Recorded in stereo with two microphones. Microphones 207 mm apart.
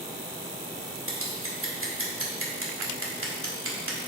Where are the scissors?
75° right (ahead or behind), 1.8 m.